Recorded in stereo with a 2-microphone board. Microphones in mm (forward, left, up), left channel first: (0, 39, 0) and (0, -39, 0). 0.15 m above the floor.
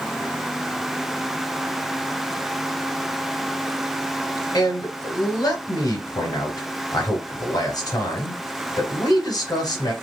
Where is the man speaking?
50° left (ahead or behind), 2.5 m.